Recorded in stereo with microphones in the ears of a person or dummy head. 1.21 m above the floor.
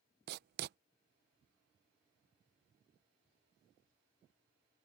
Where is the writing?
50° right (ahead or behind).